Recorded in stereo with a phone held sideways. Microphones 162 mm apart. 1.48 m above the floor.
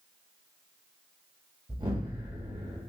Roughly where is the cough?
I don't hear a cough.